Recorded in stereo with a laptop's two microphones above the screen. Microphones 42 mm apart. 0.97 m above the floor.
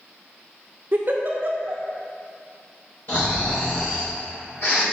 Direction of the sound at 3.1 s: 60° left (ahead or behind).